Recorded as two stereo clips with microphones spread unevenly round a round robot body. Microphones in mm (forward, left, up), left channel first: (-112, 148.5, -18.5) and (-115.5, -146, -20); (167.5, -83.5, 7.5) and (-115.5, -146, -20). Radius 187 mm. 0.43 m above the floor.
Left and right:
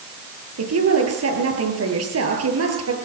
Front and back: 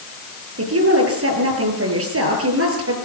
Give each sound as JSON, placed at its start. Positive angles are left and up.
{"t": 0.6, "sound": "a woman speaking", "azimuth_deg": -130, "distance_m": 8.5}